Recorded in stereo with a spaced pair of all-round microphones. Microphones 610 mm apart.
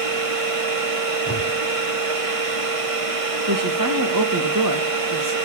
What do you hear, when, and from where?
0.0 s a machine running: 60° right (ahead or behind), 1.7 m
1.3 s a whoosh: 15° left (ahead or behind), 6.5 m
3.5 s a woman speaking: 30° right (ahead or behind), 2 m